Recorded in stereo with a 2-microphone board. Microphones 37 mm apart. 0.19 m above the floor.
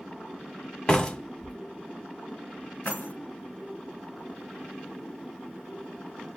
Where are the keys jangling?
55° left (ahead or behind), 1.8 m.